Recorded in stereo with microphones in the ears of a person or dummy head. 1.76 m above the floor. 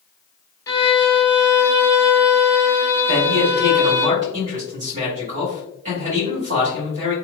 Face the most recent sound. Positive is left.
turn(degrees=-35)  # may be behind; listen again after turning